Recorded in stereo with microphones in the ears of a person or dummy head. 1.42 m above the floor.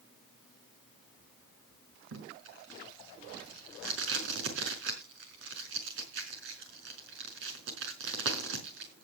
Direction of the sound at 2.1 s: 75° right (ahead or behind).